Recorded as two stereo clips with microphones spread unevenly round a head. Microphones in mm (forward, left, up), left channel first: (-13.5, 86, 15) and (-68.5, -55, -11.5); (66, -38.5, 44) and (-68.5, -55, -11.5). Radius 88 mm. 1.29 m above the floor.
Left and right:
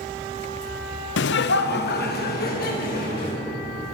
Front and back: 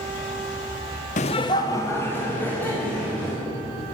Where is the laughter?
60° left, 0.5 m; by 3.4 s 90° left, 3 m.